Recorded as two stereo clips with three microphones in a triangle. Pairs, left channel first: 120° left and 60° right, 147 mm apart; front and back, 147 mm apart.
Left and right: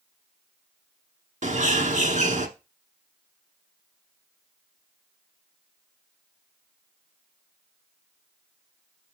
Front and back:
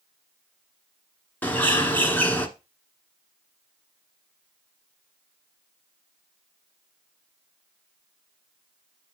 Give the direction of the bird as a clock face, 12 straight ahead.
3 o'clock.